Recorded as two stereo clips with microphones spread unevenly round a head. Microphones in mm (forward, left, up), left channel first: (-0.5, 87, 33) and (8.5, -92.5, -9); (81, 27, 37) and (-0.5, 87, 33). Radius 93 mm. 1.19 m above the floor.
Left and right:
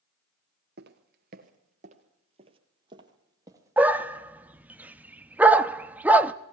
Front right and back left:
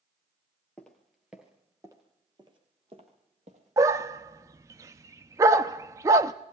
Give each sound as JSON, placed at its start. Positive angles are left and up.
{"t": 0.8, "sound": "footsteps", "azimuth_deg": -115, "distance_m": 1.6}
{"t": 3.8, "sound": "a dog barking", "azimuth_deg": 170, "distance_m": 0.6}